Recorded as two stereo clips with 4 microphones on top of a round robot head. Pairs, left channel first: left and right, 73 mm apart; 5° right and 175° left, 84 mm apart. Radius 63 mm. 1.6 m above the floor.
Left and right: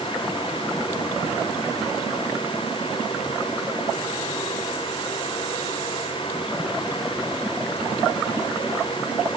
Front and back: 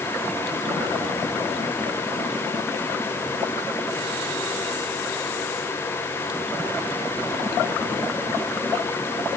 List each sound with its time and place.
Only background noise.